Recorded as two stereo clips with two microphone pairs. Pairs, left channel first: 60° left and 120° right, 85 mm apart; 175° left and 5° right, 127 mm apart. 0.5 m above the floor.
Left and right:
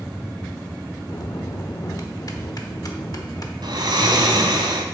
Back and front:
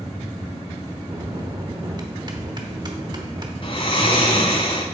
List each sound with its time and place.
1.1 s a bell: 35° left, 1.0 m
3.6 s snoring: 145° right, 1.4 m